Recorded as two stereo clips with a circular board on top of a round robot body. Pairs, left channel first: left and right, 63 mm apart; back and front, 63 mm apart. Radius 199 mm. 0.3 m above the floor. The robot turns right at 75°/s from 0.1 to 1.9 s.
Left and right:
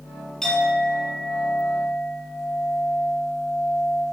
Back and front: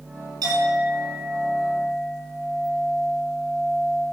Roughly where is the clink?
Ahead.